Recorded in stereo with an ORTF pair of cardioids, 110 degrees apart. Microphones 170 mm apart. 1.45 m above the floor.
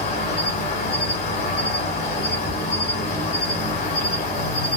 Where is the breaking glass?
I don't hear breaking glass.